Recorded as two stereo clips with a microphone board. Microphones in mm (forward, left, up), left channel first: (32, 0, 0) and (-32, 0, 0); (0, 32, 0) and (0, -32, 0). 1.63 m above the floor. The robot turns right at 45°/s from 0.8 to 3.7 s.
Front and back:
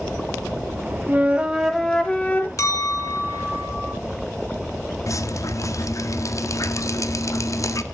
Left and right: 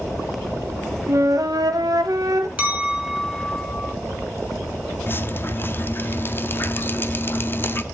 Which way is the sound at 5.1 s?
35° left.